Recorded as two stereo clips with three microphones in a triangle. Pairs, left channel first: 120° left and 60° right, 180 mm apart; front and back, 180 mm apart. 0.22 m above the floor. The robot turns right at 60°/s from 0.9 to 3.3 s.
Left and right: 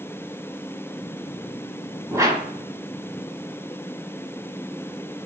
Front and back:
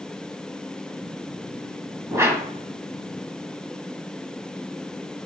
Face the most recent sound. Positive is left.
turn(degrees=-50)